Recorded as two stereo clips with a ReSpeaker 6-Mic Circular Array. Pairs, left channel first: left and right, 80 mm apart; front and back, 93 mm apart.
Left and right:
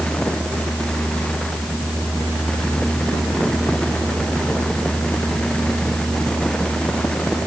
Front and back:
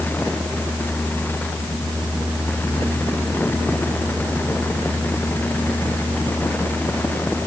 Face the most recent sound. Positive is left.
No sound to turn to.